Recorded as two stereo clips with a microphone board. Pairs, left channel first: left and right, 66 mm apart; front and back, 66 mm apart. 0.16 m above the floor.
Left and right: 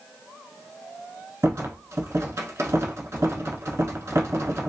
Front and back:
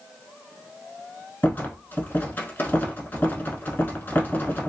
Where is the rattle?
55° right, 0.6 m.